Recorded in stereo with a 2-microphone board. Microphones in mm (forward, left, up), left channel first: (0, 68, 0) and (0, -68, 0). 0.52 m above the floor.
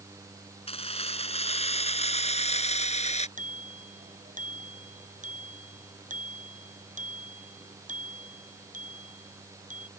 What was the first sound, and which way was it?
Keys jangling, 50° left (ahead or behind).